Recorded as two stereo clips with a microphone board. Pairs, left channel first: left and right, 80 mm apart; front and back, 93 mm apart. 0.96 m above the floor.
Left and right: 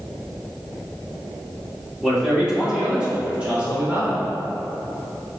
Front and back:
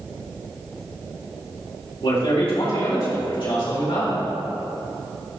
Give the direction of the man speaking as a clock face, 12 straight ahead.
12 o'clock.